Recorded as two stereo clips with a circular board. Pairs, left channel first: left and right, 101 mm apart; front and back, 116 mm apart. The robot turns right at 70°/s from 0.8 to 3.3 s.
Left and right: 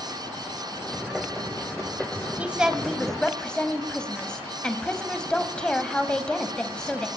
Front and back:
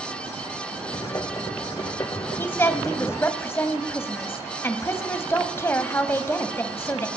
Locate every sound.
2.4 s a woman speaking: 40° right, 1.0 m; by 7.1 s 25° left, 1.0 m